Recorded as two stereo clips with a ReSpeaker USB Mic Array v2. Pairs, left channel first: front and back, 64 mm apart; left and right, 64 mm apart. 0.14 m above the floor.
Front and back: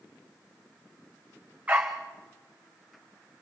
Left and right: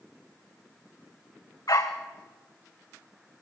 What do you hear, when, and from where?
1.7 s a dog barking: 110° left, 3 m